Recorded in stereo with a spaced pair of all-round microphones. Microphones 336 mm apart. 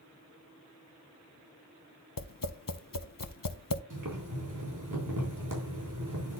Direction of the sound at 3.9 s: 70° right (ahead or behind).